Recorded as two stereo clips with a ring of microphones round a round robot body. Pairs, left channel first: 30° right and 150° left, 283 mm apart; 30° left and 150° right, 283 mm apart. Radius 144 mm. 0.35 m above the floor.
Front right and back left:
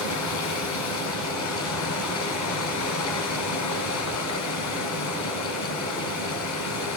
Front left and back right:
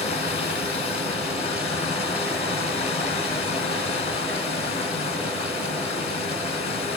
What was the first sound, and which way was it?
Running water, 35° right.